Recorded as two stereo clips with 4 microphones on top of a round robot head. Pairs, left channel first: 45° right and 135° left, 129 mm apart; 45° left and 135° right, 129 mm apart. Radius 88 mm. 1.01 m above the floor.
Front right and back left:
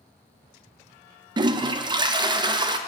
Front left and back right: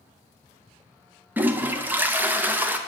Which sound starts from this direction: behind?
A toilet flushing, at 1.4 s.